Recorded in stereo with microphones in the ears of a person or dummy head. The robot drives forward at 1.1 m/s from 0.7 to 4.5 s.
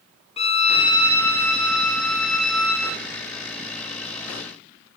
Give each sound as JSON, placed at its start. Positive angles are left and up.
{"t": 0.4, "sound": "a violin", "side_deg": 30, "distance_m": 0.6}